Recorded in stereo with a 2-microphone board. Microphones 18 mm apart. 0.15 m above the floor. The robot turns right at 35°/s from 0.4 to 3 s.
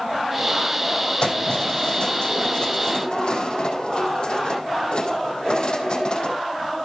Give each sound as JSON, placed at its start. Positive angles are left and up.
{"t": 1.2, "sound": "keys jangling", "azimuth_deg": 55, "distance_m": 4.0}